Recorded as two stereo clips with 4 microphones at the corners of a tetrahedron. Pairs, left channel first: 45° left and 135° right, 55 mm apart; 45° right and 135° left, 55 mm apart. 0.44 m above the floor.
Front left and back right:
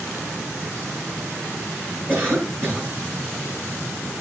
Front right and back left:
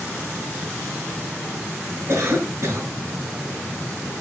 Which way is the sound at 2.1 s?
170° left.